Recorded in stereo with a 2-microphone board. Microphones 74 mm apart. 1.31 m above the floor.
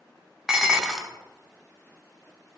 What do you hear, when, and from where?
0.5 s dishes clattering: 5° right (ahead or behind), 0.5 m